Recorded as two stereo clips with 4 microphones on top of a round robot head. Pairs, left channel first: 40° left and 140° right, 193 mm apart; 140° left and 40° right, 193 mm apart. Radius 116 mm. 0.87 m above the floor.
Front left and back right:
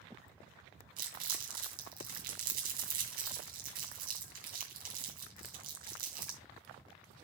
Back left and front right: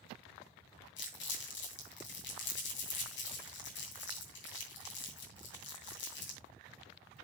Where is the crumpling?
175° left, 2.5 m.